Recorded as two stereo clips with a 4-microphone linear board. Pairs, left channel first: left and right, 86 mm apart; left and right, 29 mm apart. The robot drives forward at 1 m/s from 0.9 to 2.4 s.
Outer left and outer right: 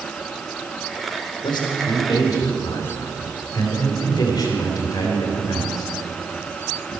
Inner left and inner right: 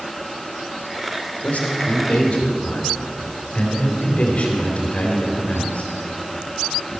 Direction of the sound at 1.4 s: 65° left (ahead or behind).